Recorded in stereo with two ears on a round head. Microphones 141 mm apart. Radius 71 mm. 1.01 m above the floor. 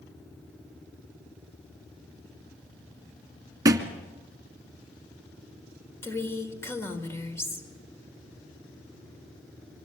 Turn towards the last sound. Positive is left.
turn(degrees=15)  # may be behind; listen again after turning